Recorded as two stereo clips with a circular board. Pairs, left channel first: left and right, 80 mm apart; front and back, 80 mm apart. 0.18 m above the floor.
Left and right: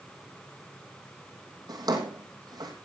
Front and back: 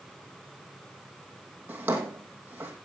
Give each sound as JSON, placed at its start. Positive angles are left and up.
{"t": 1.7, "sound": "a drawer", "azimuth_deg": -115, "distance_m": 3.0}